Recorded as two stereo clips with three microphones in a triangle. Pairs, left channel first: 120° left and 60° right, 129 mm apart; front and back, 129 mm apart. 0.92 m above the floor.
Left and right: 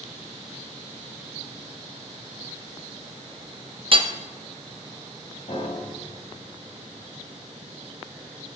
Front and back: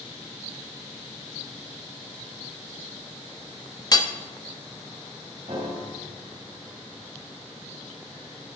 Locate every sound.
3.9 s hammering: 45° right, 0.8 m
5.5 s a piano: 150° left, 4 m